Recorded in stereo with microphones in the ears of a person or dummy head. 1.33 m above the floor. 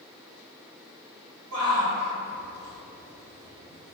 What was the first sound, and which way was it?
A shout, 85° right.